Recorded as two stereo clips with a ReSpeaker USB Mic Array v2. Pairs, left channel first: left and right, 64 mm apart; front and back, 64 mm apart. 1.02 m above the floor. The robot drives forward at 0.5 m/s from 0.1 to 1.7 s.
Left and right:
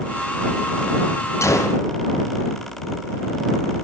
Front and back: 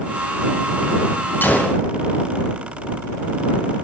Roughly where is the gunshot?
Ahead left.